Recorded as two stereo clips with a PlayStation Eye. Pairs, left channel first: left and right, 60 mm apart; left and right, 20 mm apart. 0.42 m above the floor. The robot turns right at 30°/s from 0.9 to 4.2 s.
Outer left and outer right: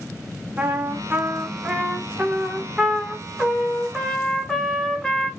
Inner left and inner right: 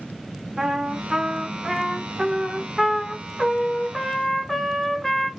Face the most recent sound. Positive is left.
turn(degrees=5)  # may be behind; listen again after turning